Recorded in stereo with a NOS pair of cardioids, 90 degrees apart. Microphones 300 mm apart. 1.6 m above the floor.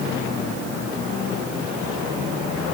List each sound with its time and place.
Only background noise.